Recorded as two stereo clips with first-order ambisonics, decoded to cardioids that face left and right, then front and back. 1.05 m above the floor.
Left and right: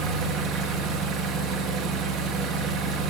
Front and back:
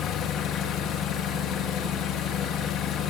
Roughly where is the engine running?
Ahead right.